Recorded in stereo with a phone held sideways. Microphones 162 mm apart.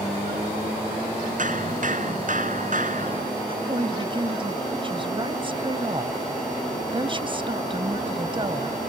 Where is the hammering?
60° right (ahead or behind).